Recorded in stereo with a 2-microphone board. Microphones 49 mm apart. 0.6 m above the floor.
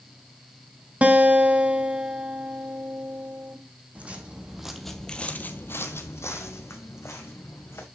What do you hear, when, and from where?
1.0 s a guitar: 30° right (ahead or behind), 1.7 m
4.0 s footsteps: 30° right (ahead or behind), 1.5 m; by 7.8 s 70° left (ahead or behind), 3 m